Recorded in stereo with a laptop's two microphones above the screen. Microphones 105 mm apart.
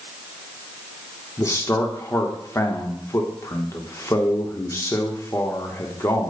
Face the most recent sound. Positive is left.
turn(degrees=30)  # may be behind; listen again after turning